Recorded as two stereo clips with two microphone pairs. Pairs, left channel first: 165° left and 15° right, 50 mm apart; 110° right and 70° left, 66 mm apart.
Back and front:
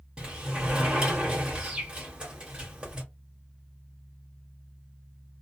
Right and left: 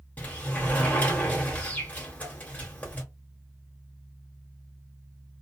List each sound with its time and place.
0.2 s a sliding door: 70° right, 1.4 m